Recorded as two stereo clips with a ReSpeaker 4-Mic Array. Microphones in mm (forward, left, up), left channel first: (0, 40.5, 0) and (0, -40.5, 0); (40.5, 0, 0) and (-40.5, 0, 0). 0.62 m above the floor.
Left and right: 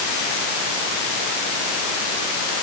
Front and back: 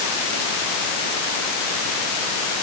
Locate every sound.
Only background noise.